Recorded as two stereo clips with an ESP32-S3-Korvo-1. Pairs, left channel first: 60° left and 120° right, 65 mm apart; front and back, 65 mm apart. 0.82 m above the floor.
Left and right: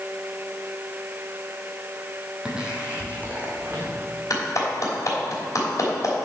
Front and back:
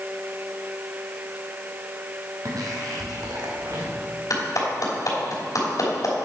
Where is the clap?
30° left, 3 m.